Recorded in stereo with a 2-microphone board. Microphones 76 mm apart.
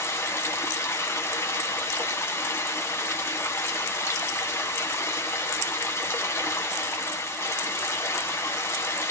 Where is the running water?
35° left (ahead or behind), 1.4 m.